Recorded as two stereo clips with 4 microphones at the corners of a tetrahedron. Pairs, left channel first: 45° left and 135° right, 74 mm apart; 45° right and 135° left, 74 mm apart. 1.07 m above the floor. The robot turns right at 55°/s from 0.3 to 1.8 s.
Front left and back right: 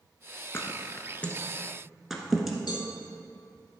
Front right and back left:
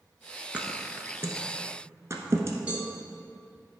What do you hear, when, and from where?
0.5 s a thud: 70° left, 1.2 m; by 2.6 s 140° left, 1.2 m
2.7 s a cowbell: 60° left, 1.8 m